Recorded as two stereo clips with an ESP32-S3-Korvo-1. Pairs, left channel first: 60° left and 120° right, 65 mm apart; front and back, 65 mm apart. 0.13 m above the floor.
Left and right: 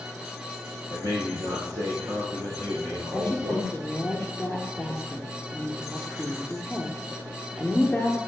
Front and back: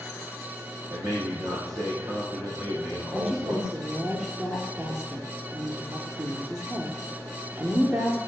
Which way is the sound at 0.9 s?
155° right.